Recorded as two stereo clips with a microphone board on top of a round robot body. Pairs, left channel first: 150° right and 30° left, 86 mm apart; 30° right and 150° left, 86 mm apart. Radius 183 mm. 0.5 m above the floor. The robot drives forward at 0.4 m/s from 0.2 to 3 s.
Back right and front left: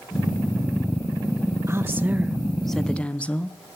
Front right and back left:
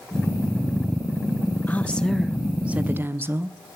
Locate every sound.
1.7 s a woman speaking: 20° left, 0.8 m; by 3.8 s 155° left, 0.7 m